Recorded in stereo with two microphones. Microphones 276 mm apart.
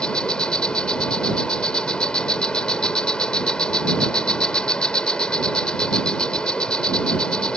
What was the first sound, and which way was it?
An insect, 5° left (ahead or behind).